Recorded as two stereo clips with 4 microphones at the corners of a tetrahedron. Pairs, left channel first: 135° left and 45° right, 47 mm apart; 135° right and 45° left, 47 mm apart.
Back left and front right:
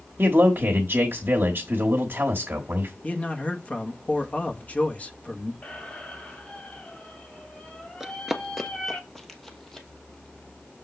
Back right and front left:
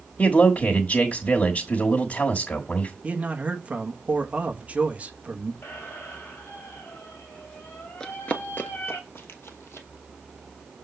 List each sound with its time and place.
0.2 s a man speaking: 80° right, 1.3 m
3.0 s a man speaking: 90° left, 1.1 m
5.6 s a squeak: 165° right, 2 m
8.0 s running footsteps: 105° right, 0.8 m; by 9.9 s 145° right, 1.9 m